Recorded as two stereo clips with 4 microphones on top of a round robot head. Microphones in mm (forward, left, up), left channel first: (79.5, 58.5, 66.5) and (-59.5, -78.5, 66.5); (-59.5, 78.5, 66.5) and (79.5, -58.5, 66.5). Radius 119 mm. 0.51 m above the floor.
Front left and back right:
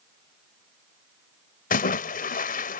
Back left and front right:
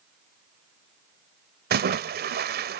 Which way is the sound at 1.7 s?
5° right.